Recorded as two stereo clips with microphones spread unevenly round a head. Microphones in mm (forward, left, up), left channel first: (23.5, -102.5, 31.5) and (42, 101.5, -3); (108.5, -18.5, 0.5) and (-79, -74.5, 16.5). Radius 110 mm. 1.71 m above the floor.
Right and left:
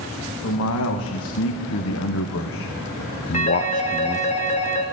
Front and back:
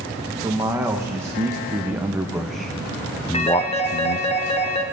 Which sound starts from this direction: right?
A man speaking, at 0.4 s.